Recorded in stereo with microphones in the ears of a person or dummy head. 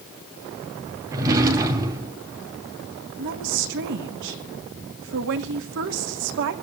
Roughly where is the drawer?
Centre.